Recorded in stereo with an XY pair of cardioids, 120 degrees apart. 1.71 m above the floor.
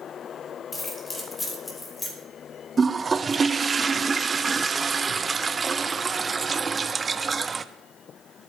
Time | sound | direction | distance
0.7 | keys jangling | 20° left | 3 m
2.8 | a toilet flushing | 25° right | 0.7 m